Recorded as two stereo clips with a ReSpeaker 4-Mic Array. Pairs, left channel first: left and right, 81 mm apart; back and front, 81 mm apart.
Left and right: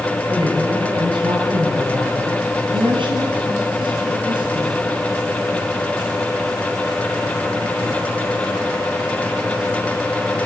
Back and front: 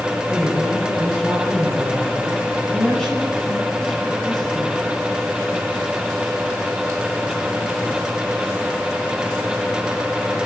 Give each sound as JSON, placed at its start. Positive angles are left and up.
{"t": 0.3, "sound": "a woman speaking", "azimuth_deg": -100, "distance_m": 7.0}